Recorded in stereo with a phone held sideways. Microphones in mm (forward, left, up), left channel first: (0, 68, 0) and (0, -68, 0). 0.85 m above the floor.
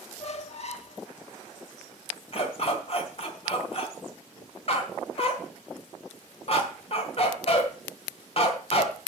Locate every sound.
0.2 s a squeak: 50° left (ahead or behind), 0.9 m
2.3 s a dog barking: 50° left (ahead or behind), 1.9 m